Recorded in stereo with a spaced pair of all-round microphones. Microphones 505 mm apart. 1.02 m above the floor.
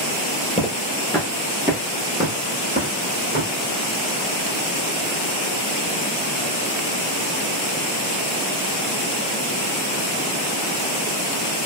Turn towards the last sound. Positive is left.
turn(degrees=-25)  # may be behind; listen again after turning